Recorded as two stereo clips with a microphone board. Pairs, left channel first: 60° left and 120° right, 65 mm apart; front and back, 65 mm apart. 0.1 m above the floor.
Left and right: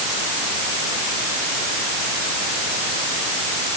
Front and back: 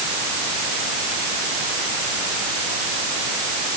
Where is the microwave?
I don't hear a microwave.